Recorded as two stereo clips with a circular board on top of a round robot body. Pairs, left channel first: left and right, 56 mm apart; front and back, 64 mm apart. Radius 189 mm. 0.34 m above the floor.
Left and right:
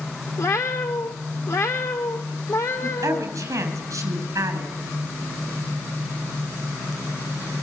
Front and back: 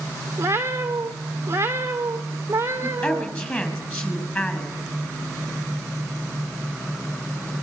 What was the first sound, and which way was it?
A cat meowing, 125° left.